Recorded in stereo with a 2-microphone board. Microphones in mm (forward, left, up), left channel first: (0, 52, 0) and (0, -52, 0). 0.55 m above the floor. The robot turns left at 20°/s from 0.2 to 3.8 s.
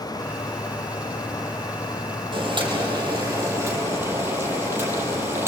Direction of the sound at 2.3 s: 50° right (ahead or behind).